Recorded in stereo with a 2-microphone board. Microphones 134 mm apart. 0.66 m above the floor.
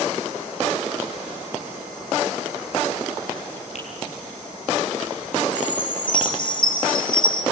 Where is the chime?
35° left (ahead or behind), 3 m.